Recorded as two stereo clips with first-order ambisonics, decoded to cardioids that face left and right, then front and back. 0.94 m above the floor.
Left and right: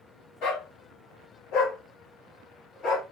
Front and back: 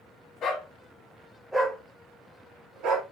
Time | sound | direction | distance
0.4 | a dog barking | 50° left | 1.1 m